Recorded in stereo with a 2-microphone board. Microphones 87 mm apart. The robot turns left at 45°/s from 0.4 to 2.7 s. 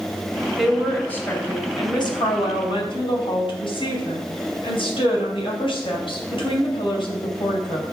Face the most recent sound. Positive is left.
turn(degrees=90)